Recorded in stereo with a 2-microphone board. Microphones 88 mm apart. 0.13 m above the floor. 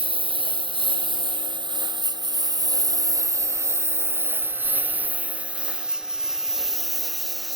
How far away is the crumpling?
No crumpling in this recording.